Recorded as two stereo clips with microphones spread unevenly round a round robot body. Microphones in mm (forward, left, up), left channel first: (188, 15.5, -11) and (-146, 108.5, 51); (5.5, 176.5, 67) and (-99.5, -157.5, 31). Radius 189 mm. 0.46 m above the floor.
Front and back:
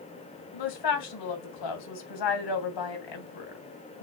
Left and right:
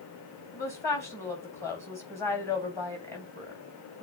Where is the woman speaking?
10° right, 3 m.